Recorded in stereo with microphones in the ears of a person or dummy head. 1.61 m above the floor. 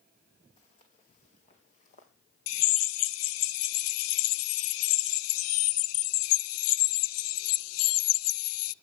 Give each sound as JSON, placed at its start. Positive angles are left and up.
{"t": 0.6, "sound": "footsteps", "side_deg": 30, "distance_m": 5.0}
{"t": 2.5, "sound": "a drill", "side_deg": 70, "distance_m": 0.6}